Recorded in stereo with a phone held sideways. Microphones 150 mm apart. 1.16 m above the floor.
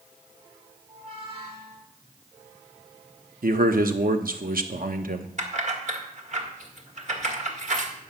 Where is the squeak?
40° right (ahead or behind), 3.5 m.